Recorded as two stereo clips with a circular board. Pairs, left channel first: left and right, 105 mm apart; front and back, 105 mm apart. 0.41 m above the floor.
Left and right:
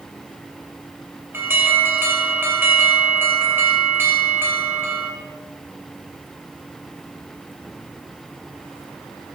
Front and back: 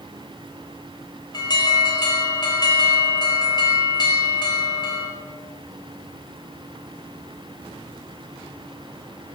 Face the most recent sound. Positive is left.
turn(degrees=-25)